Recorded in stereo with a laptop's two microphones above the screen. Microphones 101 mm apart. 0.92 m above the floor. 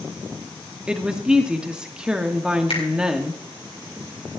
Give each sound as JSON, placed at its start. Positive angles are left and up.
{"t": 0.9, "sound": "a woman speaking", "side_deg": -10, "distance_m": 1.8}
{"t": 2.7, "sound": "a finger snap", "side_deg": 70, "distance_m": 4.0}